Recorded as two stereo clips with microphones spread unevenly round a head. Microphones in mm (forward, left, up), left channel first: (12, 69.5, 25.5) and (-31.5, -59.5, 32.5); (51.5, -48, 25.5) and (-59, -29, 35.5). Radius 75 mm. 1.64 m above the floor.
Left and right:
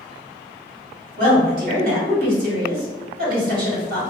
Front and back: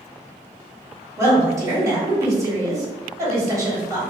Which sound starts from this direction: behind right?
A woman speaking, at 1.2 s.